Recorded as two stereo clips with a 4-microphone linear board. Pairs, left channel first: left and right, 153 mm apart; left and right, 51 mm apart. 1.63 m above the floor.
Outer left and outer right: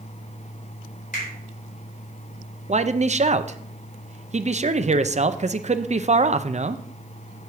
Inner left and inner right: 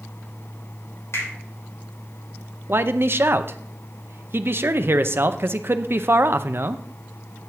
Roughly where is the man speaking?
Right.